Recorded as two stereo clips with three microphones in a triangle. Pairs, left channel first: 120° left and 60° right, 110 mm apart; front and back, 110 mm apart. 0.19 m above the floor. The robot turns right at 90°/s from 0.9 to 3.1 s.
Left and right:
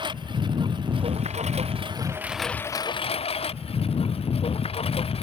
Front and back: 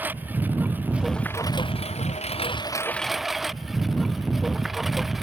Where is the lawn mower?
105° right; by 5.2 s 90° left.